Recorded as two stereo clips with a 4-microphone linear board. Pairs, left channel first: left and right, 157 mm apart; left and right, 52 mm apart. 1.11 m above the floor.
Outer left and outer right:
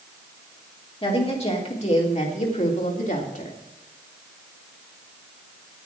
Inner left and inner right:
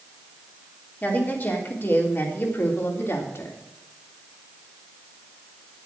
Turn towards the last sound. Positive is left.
turn(degrees=65)  # may be behind; listen again after turning